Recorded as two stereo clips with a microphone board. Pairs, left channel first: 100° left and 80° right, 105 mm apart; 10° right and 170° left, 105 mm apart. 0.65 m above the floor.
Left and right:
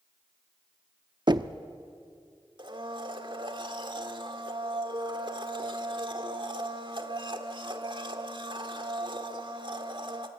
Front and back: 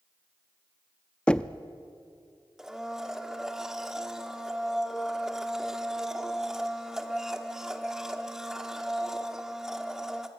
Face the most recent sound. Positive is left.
turn(degrees=-105)